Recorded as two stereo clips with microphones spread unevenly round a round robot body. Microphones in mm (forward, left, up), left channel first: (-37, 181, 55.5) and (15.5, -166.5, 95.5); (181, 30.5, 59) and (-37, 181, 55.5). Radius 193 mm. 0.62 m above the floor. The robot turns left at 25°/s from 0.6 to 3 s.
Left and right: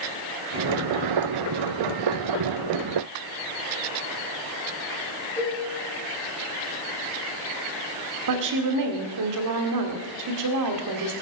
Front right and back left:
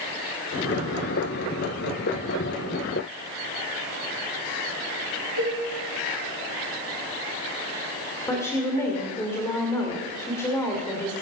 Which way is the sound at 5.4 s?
175° left.